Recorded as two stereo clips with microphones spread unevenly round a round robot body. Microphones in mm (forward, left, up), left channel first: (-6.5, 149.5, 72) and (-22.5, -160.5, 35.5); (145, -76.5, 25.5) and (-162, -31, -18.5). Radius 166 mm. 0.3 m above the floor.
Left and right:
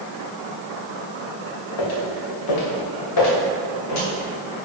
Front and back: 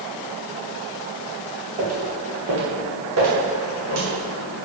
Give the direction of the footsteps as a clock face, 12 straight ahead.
9 o'clock.